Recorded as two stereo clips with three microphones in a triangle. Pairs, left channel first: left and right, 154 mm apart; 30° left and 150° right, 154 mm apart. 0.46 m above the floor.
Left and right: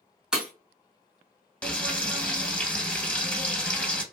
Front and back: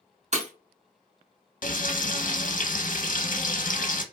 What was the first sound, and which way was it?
Breaking glass, 175° right.